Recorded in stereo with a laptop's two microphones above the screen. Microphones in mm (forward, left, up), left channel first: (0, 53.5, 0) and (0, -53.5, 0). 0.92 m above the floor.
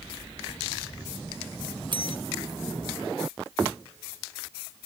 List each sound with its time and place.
1.9 s a bell: 45° right (ahead or behind)